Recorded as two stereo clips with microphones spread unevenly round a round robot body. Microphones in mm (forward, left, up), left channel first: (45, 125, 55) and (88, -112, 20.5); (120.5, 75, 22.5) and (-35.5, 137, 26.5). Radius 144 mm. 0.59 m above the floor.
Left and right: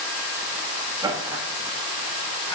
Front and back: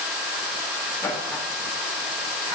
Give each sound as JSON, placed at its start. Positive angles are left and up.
{"t": 1.0, "sound": "laughter", "azimuth_deg": -75, "distance_m": 1.2}